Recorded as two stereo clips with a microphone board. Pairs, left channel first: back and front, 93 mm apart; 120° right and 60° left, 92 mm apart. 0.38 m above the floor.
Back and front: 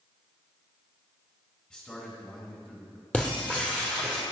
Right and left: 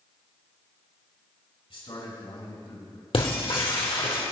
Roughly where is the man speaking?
Right.